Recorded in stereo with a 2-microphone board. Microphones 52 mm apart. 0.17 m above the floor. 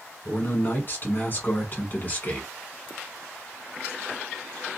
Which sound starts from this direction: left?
A man speaking, at 0.2 s.